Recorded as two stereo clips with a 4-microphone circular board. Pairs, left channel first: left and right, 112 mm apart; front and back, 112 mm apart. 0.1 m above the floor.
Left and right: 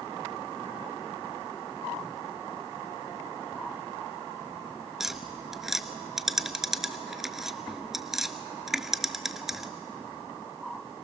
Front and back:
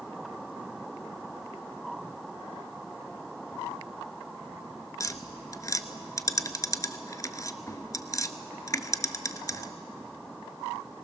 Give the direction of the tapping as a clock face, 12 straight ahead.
12 o'clock.